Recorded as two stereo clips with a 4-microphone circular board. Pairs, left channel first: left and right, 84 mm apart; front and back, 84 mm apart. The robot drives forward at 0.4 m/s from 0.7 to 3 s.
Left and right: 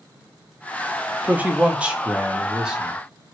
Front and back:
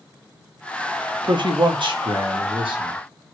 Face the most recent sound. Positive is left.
turn(degrees=-170)